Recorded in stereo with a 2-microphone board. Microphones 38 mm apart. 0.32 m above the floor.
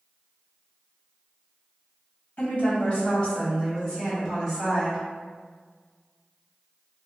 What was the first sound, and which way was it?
A woman speaking, 45° left (ahead or behind).